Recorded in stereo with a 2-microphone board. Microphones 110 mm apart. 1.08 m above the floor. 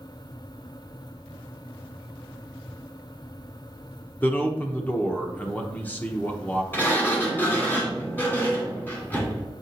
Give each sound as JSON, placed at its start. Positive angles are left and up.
{"t": 4.2, "sound": "a man speaking", "side_deg": 15, "distance_m": 1.0}
{"t": 6.7, "sound": "a sliding door", "side_deg": 20, "distance_m": 2.0}